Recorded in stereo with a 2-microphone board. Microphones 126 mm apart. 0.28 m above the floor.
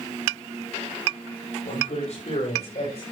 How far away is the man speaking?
About 8 m.